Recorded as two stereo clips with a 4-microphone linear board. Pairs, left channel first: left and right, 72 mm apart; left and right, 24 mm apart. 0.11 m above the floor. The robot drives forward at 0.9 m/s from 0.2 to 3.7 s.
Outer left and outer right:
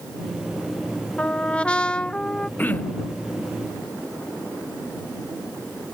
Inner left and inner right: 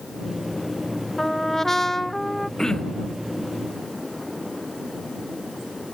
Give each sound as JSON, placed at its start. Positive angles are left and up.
{"t": 1.2, "sound": "a trumpet", "side_deg": 15}
{"t": 2.6, "sound": "throat clearing", "side_deg": 25}